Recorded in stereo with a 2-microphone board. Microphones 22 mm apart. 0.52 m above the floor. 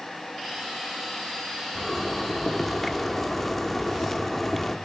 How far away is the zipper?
About 0.8 m.